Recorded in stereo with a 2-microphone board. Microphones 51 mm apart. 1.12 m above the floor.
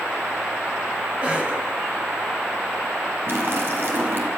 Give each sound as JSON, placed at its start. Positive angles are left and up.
{"t": 1.2, "sound": "a cough", "side_deg": -25, "distance_m": 8.0}
{"t": 3.3, "sound": "a splash", "side_deg": -50, "distance_m": 5.5}